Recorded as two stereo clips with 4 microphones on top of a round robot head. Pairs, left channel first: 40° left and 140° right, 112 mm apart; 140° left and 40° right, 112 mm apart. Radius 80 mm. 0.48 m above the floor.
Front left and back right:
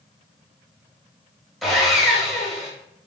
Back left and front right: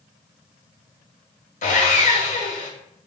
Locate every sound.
1.6 s sawing: 130° left, 0.8 m